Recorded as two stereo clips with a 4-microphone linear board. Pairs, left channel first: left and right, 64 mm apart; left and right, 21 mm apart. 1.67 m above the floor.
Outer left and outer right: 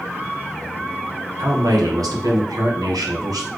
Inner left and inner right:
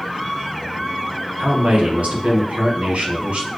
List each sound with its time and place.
1.4 s a man speaking: 70° right (ahead or behind), 1.4 m